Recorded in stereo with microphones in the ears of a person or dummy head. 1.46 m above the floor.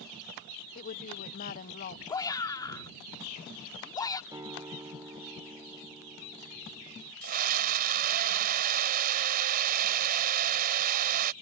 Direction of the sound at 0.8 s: 50° left (ahead or behind).